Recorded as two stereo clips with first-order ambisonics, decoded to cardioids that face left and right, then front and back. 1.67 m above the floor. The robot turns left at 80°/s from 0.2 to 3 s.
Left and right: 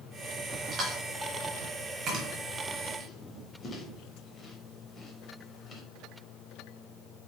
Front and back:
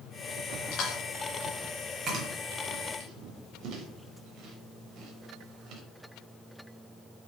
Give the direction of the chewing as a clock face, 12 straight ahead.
1 o'clock.